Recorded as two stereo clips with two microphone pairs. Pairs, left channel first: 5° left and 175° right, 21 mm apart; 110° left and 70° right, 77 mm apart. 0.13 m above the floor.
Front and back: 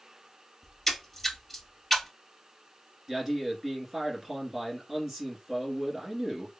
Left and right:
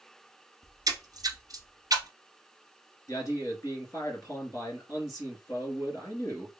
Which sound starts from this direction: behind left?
A man speaking, at 3.1 s.